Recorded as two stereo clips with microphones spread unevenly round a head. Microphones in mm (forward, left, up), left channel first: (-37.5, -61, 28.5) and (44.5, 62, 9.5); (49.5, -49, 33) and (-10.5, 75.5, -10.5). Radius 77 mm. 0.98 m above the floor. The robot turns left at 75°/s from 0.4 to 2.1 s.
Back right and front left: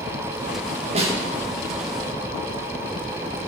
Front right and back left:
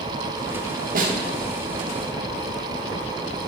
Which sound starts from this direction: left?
A snare drum, at 0.9 s.